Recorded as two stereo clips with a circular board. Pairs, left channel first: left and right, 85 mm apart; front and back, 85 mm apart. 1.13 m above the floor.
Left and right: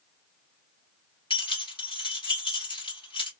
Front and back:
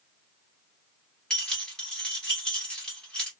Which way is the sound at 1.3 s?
80° left.